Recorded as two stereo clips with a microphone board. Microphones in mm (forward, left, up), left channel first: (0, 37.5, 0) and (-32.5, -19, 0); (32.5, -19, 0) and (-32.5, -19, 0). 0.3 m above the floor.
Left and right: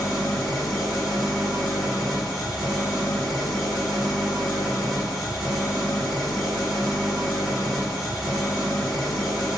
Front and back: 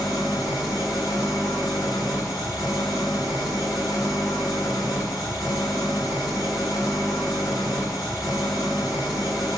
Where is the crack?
I don't hear a crack.